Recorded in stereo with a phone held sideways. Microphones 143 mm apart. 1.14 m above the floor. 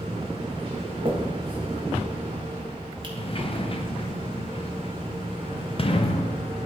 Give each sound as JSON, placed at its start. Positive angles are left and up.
{"t": 0.0, "sound": "a machine running", "side_deg": -40, "distance_m": 1.0}
{"t": 1.1, "sound": "a finger snap", "side_deg": -35, "distance_m": 1.6}
{"t": 3.2, "sound": "a sliding door", "side_deg": 40, "distance_m": 0.6}